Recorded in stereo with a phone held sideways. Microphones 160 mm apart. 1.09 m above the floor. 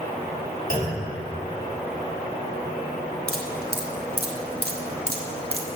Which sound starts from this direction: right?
Dripping, at 3.3 s.